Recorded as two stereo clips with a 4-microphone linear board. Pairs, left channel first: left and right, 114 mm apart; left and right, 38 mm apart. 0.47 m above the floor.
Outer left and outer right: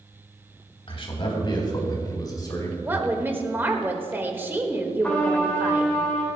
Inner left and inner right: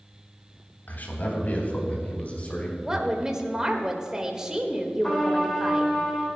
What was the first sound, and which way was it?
A man speaking, 55° left (ahead or behind).